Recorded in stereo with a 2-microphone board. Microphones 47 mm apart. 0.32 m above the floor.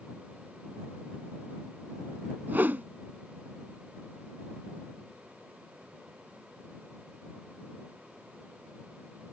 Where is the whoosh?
45° right (ahead or behind).